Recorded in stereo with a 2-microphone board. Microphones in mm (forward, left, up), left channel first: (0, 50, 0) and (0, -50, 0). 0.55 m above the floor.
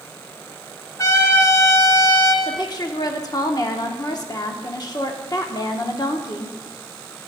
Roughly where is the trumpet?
Left.